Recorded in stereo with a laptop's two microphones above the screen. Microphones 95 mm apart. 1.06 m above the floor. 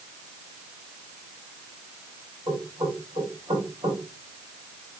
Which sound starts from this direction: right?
Knocking, at 2.5 s.